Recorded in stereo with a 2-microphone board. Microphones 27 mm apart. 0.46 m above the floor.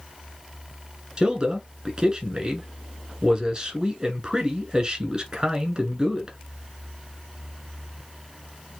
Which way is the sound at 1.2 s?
35° right (ahead or behind).